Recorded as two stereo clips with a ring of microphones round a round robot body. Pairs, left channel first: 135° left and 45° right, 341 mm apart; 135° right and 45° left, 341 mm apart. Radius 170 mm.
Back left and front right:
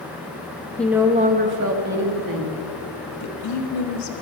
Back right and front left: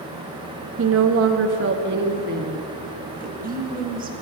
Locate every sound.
0.8 s a woman speaking: 50° left, 0.6 m; by 2.6 s 20° right, 1.3 m
3.1 s a woman speaking: 105° left, 1.1 m